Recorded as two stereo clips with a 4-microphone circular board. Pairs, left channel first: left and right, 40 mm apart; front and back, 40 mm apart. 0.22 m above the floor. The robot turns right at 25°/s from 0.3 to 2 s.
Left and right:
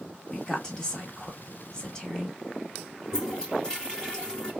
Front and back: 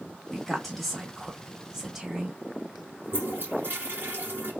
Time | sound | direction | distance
0.3 | a woman speaking | 65° left | 1.1 m
3.0 | a toilet flushing | 160° left | 2 m